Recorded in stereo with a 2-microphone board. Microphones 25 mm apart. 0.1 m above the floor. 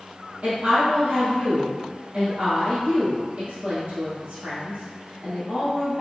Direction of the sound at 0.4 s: 50° right (ahead or behind).